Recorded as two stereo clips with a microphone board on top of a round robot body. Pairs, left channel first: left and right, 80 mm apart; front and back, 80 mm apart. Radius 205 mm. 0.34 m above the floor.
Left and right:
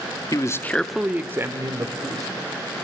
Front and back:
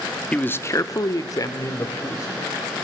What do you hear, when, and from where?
0.3 s a man speaking: 70° left, 1.3 m; by 2.5 s 50° right, 3 m